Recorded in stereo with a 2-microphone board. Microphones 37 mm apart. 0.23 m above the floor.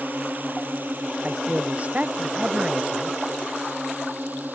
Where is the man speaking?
45° right (ahead or behind).